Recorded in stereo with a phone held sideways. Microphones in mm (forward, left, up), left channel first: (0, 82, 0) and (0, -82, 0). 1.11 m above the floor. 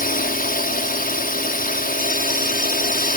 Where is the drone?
60° left (ahead or behind).